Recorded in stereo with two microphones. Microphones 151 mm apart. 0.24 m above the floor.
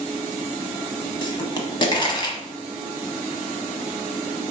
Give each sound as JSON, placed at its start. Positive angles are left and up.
{"t": 1.2, "sound": "a pop", "side_deg": 30, "distance_m": 0.8}